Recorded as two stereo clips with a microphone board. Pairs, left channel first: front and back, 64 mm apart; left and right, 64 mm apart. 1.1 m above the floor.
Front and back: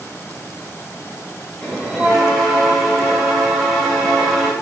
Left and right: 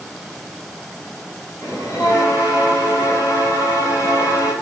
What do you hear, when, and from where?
1.6 s a bell: 95° left, 1.9 m